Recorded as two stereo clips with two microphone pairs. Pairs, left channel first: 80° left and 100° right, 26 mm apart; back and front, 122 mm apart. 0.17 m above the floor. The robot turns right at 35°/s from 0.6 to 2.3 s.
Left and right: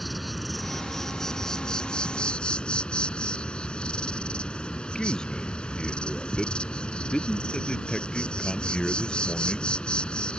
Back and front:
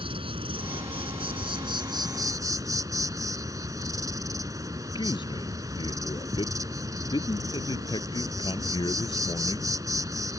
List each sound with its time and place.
0.0 s an insect: 10° right; by 10.4 s 50° left
5.0 s a man speaking: 135° left